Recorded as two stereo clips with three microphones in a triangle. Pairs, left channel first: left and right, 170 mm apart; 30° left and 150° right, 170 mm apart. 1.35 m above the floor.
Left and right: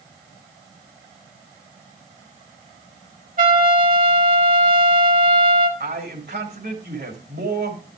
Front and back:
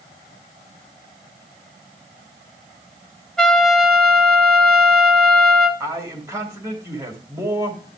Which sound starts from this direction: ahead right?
A trumpet, at 3.4 s.